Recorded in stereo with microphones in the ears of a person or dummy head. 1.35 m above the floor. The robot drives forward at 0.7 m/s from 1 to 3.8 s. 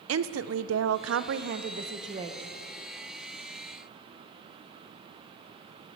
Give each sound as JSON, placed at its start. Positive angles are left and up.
{"t": 0.1, "sound": "a woman speaking", "side_deg": -80, "distance_m": 0.6}